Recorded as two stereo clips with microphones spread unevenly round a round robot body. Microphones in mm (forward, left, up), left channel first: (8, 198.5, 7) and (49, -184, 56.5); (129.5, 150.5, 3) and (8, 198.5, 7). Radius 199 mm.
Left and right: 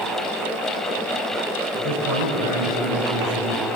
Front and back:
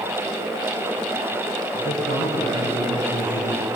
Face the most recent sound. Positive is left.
turn(degrees=-65)